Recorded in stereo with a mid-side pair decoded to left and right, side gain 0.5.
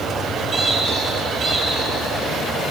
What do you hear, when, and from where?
0.5 s a squeak: 55° right, 10 m